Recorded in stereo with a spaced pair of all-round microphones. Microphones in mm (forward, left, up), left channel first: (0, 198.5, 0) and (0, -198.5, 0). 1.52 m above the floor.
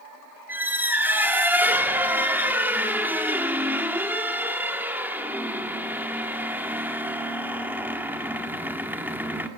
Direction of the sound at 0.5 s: 5° right (ahead or behind).